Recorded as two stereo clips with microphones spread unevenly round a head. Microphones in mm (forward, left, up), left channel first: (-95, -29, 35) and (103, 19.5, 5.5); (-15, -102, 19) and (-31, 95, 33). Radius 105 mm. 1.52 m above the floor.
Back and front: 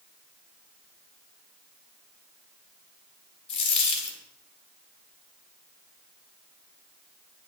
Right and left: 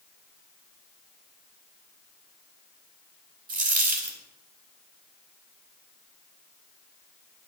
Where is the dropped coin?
135° left, 3.5 m.